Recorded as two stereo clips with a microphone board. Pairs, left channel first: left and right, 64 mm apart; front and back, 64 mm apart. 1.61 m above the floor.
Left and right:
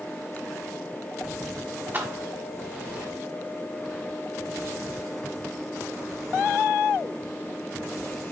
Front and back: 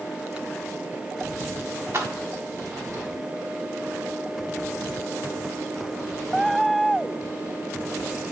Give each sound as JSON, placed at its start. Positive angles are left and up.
{"t": 1.9, "sound": "keys jangling", "azimuth_deg": -140, "distance_m": 1.2}